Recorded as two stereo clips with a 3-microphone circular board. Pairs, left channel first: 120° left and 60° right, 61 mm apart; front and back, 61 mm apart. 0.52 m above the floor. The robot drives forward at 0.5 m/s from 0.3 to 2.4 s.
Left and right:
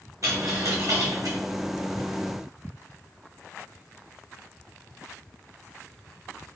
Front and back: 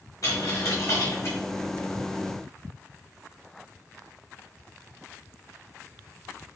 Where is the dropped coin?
30° right, 1.8 m; by 1.4 s 45° right, 1.4 m.